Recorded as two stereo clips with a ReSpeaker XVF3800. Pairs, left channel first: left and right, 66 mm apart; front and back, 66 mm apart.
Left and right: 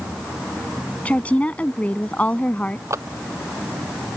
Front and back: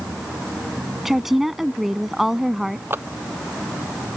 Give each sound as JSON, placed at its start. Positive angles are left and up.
{"t": 1.1, "sound": "a woman speaking", "azimuth_deg": 100}
{"t": 2.9, "sound": "a clap", "azimuth_deg": -130}